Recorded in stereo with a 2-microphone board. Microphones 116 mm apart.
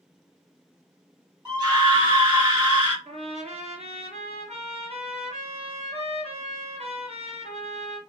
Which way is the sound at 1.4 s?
40° right (ahead or behind).